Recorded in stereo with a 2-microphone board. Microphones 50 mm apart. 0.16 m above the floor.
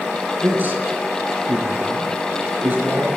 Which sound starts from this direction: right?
A man speaking, at 0.4 s.